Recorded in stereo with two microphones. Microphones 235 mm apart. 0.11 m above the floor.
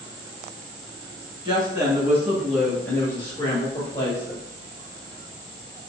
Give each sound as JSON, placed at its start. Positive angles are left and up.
{"t": 1.4, "sound": "a woman speaking", "side_deg": -20, "distance_m": 1.2}